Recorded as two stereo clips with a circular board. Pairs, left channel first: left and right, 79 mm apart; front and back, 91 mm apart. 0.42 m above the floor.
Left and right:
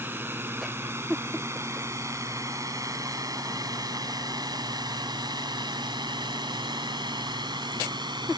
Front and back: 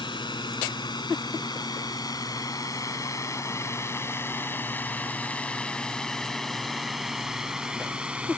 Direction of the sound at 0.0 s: 30° right.